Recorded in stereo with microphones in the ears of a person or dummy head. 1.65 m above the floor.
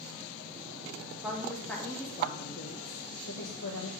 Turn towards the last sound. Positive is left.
turn(degrees=70)  # may be behind; listen again after turning